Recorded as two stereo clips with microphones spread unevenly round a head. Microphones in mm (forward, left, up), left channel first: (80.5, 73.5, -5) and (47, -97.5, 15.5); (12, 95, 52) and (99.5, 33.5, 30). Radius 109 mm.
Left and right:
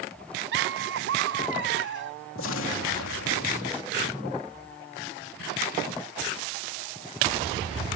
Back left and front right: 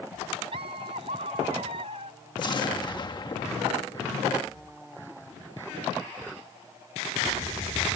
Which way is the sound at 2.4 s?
100° left.